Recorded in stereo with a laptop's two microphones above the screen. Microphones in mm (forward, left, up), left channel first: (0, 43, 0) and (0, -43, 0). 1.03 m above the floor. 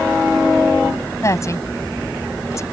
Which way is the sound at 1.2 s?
35° left (ahead or behind).